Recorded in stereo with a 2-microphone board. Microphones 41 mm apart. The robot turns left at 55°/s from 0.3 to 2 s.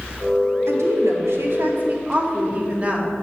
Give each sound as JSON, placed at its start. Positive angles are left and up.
{"t": 0.7, "sound": "a woman speaking", "azimuth_deg": -75, "distance_m": 2.5}